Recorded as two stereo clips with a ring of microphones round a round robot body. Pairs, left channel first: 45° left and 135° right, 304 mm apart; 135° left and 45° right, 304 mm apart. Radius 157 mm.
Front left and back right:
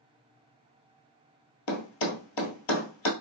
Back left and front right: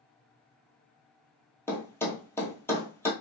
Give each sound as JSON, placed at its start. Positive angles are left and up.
{"t": 1.7, "sound": "a thud", "azimuth_deg": 55, "distance_m": 1.0}